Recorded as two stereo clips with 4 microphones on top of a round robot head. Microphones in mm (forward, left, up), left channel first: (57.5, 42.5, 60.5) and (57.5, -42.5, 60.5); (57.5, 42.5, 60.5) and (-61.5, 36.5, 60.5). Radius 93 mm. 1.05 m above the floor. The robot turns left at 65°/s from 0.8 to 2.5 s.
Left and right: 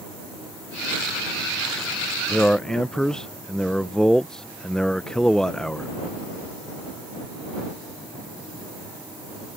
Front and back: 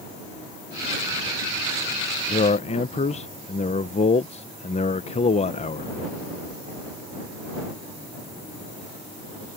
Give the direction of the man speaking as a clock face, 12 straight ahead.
11 o'clock.